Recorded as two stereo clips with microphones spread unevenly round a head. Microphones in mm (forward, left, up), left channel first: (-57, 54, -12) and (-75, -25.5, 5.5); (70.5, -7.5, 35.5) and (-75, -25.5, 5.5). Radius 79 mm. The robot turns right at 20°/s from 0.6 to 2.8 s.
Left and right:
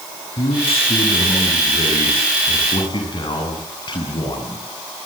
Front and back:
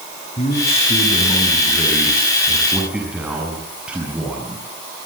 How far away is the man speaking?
About 7.5 m.